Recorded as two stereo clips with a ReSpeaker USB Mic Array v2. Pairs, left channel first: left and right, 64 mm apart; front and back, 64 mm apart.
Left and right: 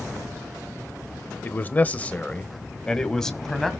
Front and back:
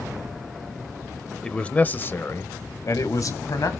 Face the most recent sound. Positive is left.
turn(degrees=5)